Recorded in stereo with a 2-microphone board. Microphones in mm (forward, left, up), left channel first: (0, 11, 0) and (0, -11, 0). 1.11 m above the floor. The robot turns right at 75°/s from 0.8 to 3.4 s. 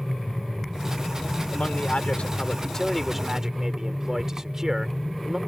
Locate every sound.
1.5 s a man speaking: 60° left; by 5.4 s 160° right